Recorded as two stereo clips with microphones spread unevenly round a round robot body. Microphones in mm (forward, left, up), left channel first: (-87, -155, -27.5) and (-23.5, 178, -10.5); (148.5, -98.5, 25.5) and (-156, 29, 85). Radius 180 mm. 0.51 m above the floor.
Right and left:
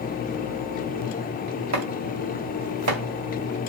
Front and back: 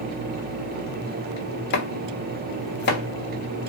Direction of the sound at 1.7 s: 30° left.